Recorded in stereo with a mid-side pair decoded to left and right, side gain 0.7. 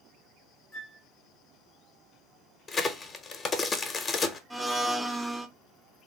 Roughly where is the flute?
Ahead left.